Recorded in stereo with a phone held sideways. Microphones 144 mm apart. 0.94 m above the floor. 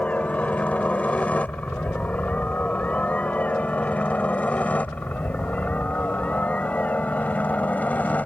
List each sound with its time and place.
0.0 s a helicopter: 10° left (ahead or behind)